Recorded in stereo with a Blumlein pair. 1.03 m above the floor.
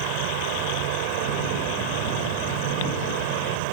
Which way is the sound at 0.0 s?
45° right.